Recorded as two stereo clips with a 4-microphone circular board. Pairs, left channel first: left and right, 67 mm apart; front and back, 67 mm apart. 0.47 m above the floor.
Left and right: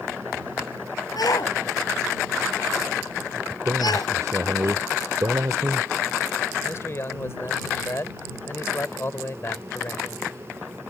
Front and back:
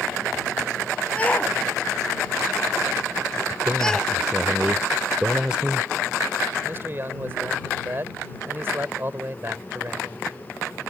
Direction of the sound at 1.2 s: 70° left.